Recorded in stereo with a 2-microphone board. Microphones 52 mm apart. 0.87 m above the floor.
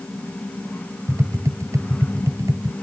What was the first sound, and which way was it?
Tapping, 85° right.